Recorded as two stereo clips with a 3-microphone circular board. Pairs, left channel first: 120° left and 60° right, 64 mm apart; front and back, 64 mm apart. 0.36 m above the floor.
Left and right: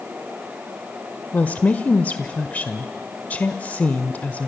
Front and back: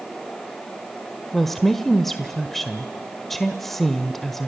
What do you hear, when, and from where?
1.3 s a woman speaking: 85° left, 1.2 m